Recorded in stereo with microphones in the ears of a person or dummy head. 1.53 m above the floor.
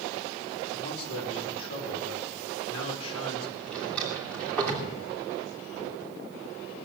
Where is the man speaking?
85° left, 4 m.